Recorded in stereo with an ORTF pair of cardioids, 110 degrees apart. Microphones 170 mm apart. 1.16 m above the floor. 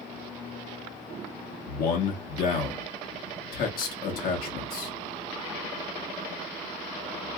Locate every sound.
1.7 s a man speaking: 60° left, 1.4 m